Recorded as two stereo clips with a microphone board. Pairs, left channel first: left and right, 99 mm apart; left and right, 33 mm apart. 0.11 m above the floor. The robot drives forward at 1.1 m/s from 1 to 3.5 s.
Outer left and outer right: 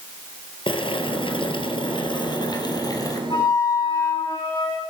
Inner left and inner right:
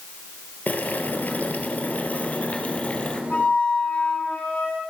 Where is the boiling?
60° left (ahead or behind), 2.5 m; by 3.2 s 40° left (ahead or behind), 3 m.